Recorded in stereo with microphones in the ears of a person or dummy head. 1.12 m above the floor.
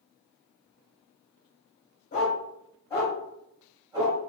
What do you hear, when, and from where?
2.1 s a dog barking: 40° left (ahead or behind), 1.3 m; by 4.2 s 15° right (ahead or behind), 1.5 m